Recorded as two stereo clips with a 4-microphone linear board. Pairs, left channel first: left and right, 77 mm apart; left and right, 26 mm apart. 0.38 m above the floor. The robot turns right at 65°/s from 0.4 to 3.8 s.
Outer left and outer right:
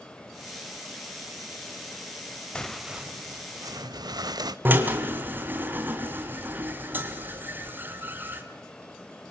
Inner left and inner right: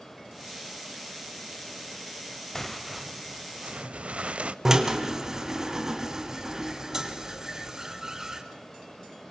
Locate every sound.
2.5 s tearing paper: 165° left, 0.6 m; by 4.5 s 110° right, 0.6 m
4.7 s a drill: 25° right (ahead or behind), 2 m